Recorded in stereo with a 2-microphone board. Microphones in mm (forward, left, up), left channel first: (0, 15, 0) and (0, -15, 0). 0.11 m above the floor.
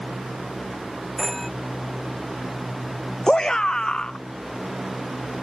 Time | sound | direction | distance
1.2 | a phone ringing | 5° left (ahead or behind) | ?
3.3 | a shout | 25° left (ahead or behind) | ?